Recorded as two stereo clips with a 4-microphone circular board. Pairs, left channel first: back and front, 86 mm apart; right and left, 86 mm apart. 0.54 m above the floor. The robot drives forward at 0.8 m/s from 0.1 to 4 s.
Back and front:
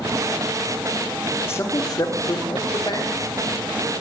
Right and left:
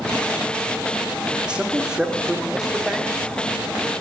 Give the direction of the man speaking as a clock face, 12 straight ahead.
7 o'clock.